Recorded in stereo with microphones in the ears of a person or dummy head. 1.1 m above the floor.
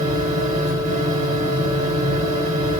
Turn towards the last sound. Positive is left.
turn(degrees=-40)  # may be behind; listen again after turning